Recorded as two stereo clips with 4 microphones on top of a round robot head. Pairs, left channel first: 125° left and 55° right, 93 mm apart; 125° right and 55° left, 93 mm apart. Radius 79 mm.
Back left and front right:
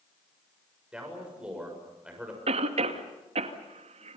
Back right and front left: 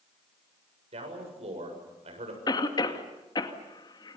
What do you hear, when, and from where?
0.9 s a man speaking: 30° left, 7 m
2.5 s a cough: 75° right, 2.5 m